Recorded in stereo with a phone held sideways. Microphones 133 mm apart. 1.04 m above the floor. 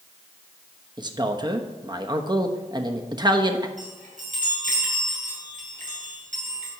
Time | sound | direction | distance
1.0 | a man speaking | 35° right (ahead or behind) | 1.0 m
3.8 | a chime | 75° right (ahead or behind) | 6 m